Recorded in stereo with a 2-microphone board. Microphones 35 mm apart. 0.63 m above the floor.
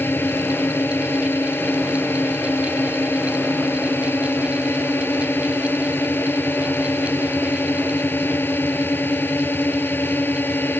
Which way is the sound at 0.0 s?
85° left.